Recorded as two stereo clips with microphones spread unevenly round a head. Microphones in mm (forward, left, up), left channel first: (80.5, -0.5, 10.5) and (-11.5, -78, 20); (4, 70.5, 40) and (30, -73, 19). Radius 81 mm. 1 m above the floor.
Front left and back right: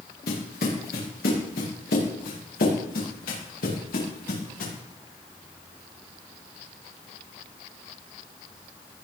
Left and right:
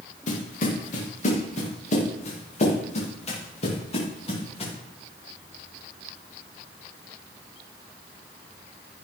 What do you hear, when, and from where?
0.3 s footsteps: 65° left, 8.5 m; by 4.7 s 50° left, 10.5 m